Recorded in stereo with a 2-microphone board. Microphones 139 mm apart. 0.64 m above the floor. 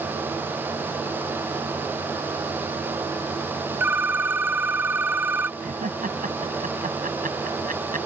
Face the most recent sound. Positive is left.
turn(degrees=-80)